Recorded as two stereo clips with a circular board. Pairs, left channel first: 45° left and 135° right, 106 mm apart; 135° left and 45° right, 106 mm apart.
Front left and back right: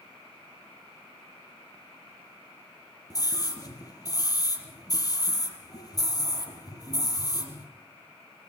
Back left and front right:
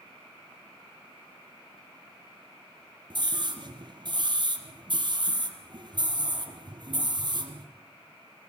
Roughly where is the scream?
Ahead.